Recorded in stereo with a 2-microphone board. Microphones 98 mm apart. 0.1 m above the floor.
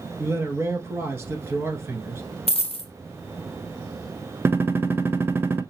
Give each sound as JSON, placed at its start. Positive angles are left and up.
{"t": 0.2, "sound": "a man speaking", "side_deg": -25, "distance_m": 1.4}
{"t": 2.5, "sound": "a dropped coin", "side_deg": 85, "distance_m": 0.6}
{"t": 4.5, "sound": "a gunshot", "side_deg": -25, "distance_m": 0.7}